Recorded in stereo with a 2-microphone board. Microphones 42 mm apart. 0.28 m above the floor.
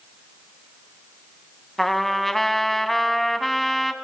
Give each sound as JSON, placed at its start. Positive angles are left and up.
{"t": 1.8, "sound": "a trumpet", "side_deg": 5, "distance_m": 0.6}